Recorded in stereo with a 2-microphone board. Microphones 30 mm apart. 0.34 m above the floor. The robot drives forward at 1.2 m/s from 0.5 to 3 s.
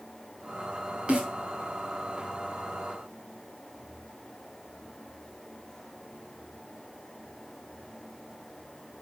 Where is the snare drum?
35° right (ahead or behind), 2.5 m.